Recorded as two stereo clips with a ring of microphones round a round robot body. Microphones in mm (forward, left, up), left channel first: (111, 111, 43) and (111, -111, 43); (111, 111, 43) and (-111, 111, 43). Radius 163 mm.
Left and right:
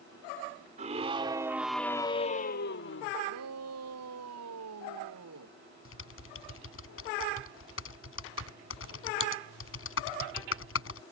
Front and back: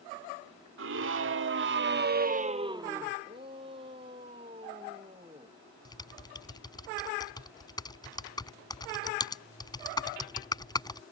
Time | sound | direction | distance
0.8 | a scream | 150° right | ?
3.2 | a shout | 105° right | ?
5.8 | typing on a keyboard | 70° left | ?